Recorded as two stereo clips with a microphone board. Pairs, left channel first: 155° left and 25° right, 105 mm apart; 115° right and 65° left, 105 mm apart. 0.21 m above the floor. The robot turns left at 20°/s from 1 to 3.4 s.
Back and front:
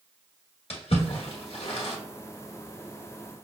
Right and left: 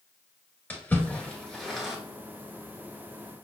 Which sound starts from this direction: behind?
A splash, at 0.7 s.